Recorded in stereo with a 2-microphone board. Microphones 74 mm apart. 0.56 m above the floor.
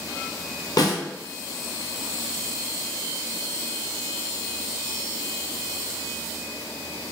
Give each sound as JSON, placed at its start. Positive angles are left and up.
{"t": 0.8, "sound": "a snare drum", "side_deg": 60, "distance_m": 0.8}